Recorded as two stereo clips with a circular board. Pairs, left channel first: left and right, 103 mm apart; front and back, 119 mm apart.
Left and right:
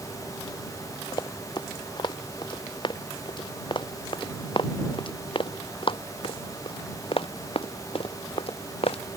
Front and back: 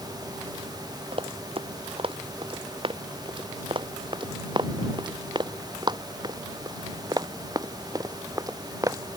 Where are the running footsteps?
140° left; by 9.2 s 115° left.